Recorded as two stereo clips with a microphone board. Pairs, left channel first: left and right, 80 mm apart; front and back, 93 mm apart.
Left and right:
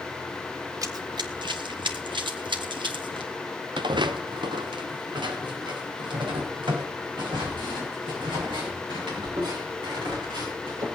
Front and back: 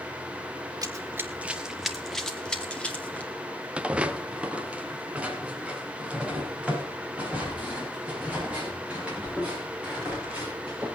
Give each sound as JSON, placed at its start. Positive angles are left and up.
{"t": 0.8, "sound": "running footsteps", "azimuth_deg": -135, "distance_m": 1.0}
{"t": 3.8, "sound": "footsteps", "azimuth_deg": -100, "distance_m": 0.9}